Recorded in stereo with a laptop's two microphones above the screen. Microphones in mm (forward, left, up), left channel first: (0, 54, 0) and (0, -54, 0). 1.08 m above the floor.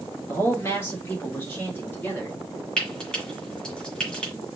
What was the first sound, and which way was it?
A man speaking, 25° left (ahead or behind).